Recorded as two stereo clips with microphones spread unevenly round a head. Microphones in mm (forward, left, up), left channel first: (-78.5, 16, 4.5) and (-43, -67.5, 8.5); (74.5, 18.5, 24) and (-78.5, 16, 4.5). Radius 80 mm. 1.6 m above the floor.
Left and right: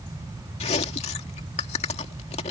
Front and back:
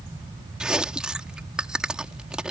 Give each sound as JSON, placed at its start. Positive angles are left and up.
{"t": 0.6, "sound": "chewing", "azimuth_deg": 95}